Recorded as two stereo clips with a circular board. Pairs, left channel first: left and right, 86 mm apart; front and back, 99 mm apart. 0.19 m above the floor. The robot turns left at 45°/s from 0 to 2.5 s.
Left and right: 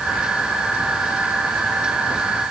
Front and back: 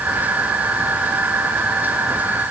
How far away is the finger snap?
No finger snap in this recording.